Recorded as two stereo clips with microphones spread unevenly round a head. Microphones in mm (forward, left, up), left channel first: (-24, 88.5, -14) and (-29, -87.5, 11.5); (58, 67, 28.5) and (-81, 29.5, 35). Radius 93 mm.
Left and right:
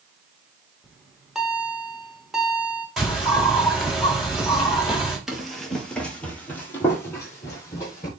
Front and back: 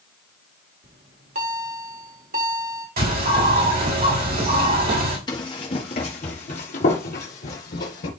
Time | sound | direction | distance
0.8 | a bell | 175° right | 2 m
3.0 | a bird | straight behind | 4 m
5.3 | running footsteps | 25° right | 1.5 m